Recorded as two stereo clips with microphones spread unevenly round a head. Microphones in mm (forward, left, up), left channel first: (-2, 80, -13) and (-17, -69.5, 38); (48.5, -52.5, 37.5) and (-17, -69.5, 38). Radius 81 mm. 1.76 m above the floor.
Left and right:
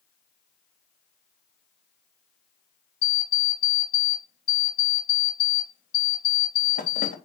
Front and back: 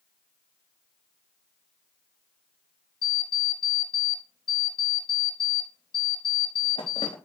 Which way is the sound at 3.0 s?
40° left.